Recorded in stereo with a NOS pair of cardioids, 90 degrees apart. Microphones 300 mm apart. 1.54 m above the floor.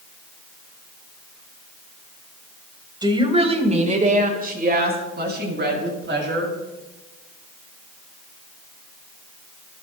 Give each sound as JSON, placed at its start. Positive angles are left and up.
{"t": 3.0, "sound": "a woman speaking", "azimuth_deg": -15, "distance_m": 3.5}